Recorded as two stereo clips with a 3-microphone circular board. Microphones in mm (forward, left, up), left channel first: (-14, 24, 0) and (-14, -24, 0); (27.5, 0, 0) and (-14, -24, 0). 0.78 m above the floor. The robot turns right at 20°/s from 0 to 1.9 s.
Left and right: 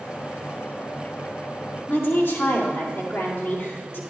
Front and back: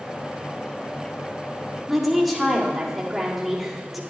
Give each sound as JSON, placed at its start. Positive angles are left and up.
{"t": 1.9, "sound": "a woman speaking", "azimuth_deg": 120, "distance_m": 2.0}